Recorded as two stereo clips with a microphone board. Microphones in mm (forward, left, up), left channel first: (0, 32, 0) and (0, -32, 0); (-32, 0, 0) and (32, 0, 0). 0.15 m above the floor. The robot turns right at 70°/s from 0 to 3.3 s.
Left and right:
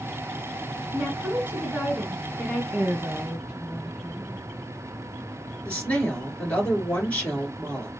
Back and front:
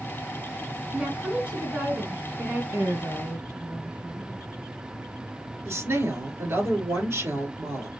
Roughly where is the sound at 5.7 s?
Ahead left.